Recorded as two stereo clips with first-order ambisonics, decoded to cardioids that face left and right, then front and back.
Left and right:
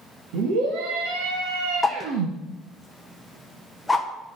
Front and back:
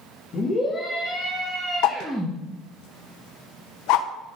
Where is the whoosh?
5° left, 0.8 m.